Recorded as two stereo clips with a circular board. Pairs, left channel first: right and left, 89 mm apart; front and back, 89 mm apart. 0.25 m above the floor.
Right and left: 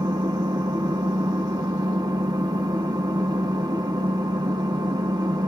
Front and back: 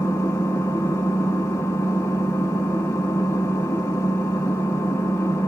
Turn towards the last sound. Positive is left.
turn(degrees=60)